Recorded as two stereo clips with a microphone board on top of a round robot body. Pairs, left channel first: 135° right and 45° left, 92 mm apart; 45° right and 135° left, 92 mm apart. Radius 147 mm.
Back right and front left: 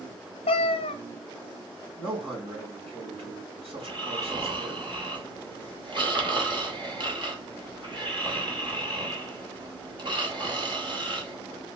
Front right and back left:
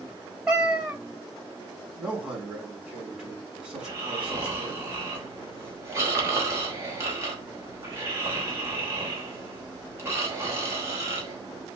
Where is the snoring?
75° left, 3 m.